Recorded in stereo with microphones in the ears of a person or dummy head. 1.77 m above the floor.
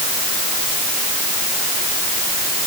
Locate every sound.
Only background noise.